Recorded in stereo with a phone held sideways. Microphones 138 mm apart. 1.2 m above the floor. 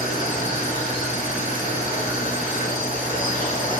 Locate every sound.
0.0 s a machine running: 90° left, 3 m